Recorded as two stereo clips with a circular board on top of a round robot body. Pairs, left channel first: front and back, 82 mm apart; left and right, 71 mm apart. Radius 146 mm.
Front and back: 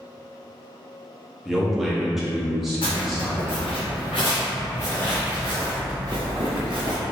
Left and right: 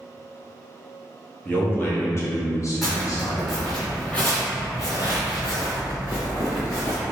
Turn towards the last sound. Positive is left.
turn(degrees=150)